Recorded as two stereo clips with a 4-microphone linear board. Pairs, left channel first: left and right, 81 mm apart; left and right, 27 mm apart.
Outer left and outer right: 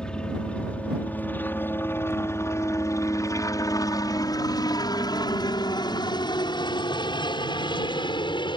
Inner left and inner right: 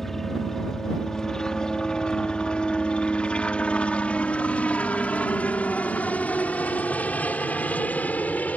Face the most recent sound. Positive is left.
turn(degrees=75)  # may be behind; listen again after turning